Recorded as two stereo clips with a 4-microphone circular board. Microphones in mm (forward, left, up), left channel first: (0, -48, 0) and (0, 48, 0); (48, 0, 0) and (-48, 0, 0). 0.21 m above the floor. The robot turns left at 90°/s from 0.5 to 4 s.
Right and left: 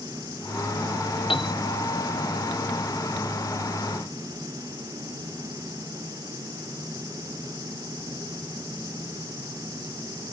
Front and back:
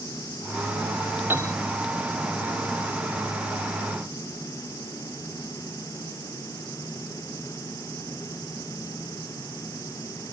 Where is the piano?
115° right; by 1.5 s 135° right.